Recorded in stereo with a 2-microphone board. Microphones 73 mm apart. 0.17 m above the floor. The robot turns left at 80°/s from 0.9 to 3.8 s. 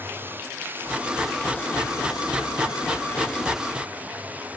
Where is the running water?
150° right; by 4.6 s 20° right.